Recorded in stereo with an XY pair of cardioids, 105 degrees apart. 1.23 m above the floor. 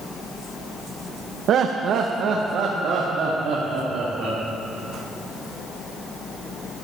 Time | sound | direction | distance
1.5 | laughter | 65° right | 0.8 m